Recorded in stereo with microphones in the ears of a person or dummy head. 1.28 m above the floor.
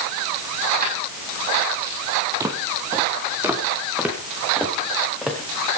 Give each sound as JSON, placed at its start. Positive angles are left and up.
{"t": 0.8, "sound": "keys jangling", "side_deg": -55, "distance_m": 6.5}
{"t": 2.4, "sound": "footsteps", "side_deg": -15, "distance_m": 2.5}